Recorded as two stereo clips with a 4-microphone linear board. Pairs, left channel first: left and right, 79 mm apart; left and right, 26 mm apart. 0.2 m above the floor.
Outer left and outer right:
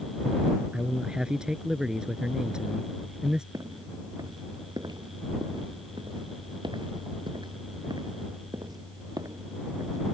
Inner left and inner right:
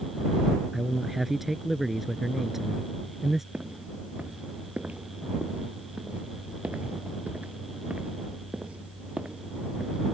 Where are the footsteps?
50° right (ahead or behind); by 10.0 s 45° right (ahead or behind).